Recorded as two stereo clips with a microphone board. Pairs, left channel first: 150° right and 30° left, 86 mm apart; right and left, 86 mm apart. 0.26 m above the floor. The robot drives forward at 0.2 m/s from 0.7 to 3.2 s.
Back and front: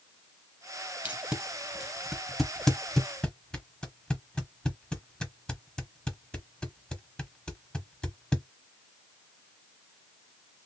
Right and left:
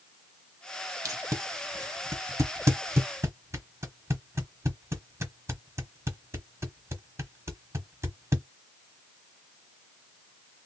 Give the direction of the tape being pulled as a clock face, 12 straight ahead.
9 o'clock.